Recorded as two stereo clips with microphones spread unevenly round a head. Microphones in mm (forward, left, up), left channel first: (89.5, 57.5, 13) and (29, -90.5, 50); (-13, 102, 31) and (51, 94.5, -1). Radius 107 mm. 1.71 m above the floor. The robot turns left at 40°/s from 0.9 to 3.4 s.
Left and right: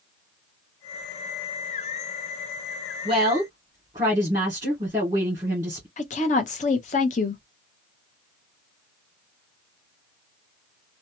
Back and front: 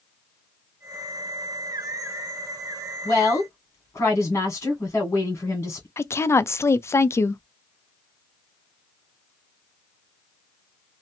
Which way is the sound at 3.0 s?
165° right.